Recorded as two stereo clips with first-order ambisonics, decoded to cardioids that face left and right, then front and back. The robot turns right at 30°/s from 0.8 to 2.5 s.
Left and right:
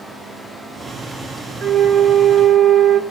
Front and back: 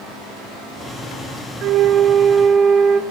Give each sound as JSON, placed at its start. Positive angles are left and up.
{"t": 1.6, "sound": "a flute", "azimuth_deg": -160, "distance_m": 1.5}